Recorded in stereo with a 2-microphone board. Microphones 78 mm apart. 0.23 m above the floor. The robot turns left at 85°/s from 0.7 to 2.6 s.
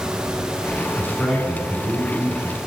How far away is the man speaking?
About 3 m.